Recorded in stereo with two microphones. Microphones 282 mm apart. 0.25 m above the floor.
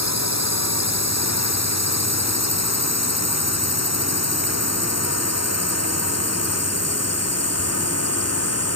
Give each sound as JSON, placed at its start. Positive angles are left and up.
{"t": 0.0, "sound": "a drone", "side_deg": 65}